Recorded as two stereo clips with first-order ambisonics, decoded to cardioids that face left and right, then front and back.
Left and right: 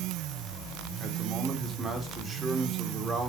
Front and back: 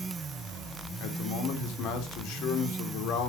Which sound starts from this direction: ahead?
A man speaking, at 1.0 s.